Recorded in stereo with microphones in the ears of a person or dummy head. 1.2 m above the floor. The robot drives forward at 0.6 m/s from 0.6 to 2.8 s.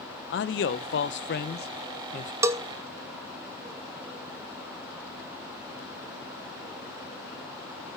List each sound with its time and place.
0.3 s a man speaking: 55° left (ahead or behind), 1.0 m; by 2.3 s 35° left (ahead or behind), 1.4 m
2.4 s a bell: 15° right (ahead or behind), 1.0 m